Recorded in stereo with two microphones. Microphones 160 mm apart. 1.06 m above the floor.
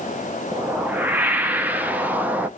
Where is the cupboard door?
No cupboard door in this recording.